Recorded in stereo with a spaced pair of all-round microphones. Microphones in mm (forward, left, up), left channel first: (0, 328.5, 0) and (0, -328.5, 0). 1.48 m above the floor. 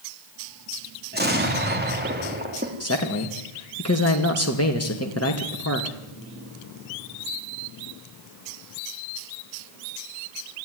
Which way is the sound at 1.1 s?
15° right (ahead or behind).